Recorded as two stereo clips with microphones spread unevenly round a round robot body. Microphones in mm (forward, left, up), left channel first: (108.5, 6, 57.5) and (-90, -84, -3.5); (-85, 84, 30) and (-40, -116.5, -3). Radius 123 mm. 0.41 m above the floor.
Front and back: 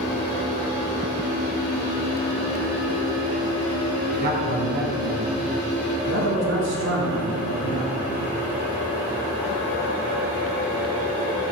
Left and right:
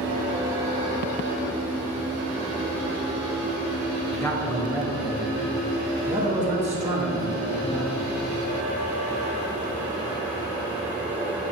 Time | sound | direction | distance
4.1 | a man speaking | 175° right | 1.6 m